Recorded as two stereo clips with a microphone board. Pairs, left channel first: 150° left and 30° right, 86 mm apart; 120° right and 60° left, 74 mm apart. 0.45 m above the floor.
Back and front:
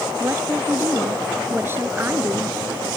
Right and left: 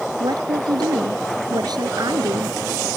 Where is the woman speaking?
35° left.